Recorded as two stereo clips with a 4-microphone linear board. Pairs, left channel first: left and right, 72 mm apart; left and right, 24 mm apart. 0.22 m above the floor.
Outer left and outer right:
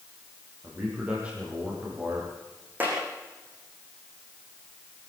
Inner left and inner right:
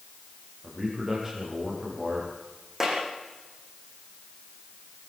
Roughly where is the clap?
Right.